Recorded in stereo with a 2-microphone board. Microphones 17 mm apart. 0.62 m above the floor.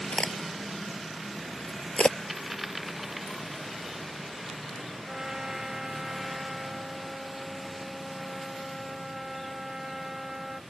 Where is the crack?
85° left.